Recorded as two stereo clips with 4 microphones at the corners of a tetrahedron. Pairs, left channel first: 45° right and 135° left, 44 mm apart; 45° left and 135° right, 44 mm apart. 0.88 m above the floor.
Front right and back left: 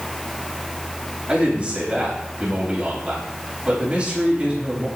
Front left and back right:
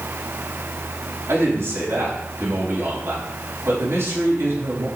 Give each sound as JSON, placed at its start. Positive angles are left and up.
{"t": 1.3, "sound": "a man speaking", "azimuth_deg": -155, "distance_m": 4.5}